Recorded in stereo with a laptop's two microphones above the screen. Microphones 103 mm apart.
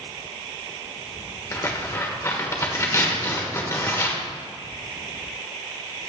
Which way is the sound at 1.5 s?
30° left (ahead or behind).